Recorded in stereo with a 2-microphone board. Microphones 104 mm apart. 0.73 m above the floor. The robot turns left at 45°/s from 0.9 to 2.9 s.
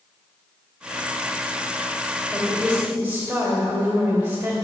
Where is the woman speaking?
15° left (ahead or behind), 2.5 m; by 4.5 s 15° right (ahead or behind), 2.5 m.